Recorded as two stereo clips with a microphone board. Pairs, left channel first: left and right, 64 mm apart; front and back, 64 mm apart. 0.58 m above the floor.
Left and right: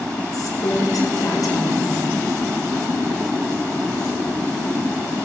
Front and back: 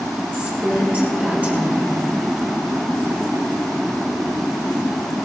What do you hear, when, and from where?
0.3 s a woman speaking: 115° left, 7.5 m